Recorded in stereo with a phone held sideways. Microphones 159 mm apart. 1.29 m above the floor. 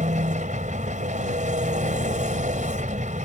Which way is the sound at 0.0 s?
50° right (ahead or behind).